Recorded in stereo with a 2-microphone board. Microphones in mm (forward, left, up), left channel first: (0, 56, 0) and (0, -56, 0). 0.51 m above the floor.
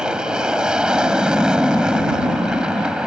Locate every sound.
0.0 s an aircraft: 10° right (ahead or behind)